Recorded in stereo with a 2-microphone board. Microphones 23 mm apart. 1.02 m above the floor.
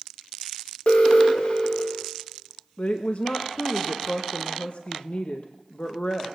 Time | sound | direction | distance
0.9 | an alarm | 50° left (ahead or behind) | 2.5 m
2.8 | a woman speaking | 60° left (ahead or behind) | 0.9 m